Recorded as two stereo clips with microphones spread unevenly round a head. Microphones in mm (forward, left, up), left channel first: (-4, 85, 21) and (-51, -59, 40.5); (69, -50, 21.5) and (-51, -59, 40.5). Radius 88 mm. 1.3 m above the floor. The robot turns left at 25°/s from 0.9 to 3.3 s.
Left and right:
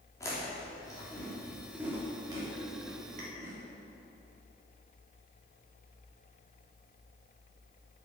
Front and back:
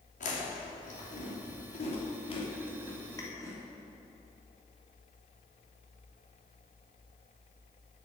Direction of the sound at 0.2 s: Straight ahead.